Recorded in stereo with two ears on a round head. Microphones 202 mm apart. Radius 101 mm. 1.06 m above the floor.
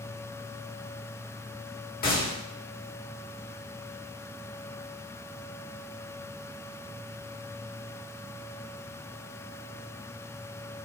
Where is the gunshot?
40° left (ahead or behind), 1.4 m.